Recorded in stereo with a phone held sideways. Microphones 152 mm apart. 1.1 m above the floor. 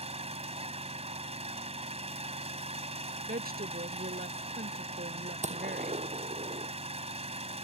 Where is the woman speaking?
80° right.